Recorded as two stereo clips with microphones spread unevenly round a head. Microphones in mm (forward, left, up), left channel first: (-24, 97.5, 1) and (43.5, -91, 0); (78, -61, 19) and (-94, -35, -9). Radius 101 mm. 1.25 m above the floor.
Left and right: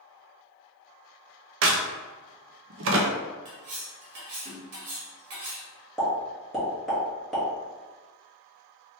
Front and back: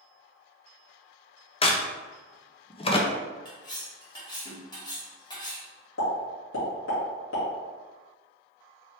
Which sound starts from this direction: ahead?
A pop, at 6.0 s.